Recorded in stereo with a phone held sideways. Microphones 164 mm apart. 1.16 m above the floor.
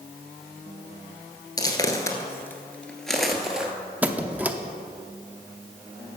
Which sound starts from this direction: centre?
A squeak, at 4.0 s.